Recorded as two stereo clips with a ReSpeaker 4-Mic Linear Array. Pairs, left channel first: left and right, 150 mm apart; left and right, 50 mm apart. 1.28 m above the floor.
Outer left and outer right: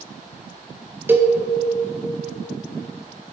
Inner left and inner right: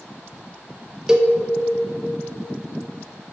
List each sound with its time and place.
1.1 s a cowbell: 15° right (ahead or behind), 0.5 m